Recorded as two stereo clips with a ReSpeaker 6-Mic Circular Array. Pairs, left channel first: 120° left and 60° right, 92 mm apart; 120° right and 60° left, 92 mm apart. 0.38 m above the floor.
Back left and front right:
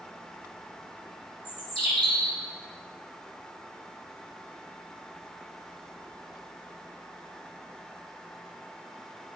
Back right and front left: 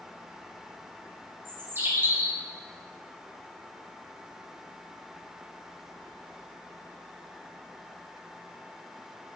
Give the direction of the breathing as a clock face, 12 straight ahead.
I don't hear breathing.